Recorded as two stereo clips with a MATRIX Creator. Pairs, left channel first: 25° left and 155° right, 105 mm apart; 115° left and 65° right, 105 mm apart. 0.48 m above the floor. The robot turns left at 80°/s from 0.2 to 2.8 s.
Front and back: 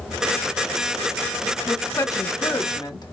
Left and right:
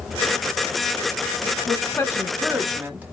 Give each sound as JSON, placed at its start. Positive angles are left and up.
{"t": 1.7, "sound": "a woman speaking", "azimuth_deg": 90, "distance_m": 1.3}